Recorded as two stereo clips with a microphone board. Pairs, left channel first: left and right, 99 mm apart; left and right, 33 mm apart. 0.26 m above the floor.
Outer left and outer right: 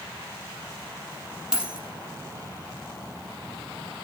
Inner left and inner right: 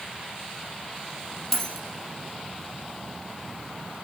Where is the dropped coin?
5° right (ahead or behind), 3.5 m.